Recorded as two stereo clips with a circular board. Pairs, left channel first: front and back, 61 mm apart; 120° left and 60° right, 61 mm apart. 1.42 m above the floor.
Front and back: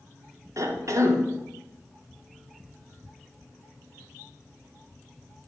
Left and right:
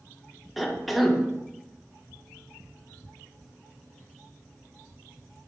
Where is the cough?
150° right, 1.0 m.